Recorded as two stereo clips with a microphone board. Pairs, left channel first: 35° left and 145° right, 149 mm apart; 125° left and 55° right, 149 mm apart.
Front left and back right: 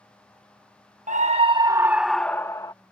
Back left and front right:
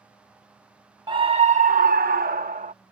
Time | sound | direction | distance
1.1 | a scream | 115° right | ?